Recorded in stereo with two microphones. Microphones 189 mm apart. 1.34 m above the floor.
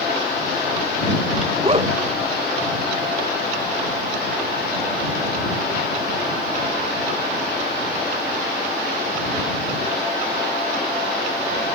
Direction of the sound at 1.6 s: 30° right (ahead or behind).